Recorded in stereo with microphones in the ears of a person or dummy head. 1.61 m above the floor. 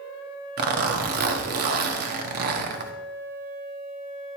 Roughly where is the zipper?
Right.